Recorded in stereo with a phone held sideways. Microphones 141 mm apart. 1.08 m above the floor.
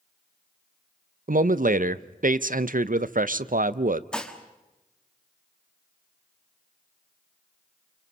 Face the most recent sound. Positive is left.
turn(degrees=5)  # may be behind; listen again after turning